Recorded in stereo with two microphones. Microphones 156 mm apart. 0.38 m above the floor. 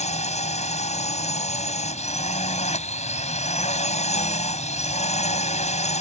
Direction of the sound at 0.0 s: 50° left (ahead or behind).